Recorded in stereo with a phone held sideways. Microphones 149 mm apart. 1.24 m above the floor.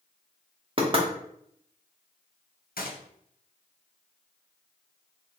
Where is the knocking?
35° right (ahead or behind), 0.8 m.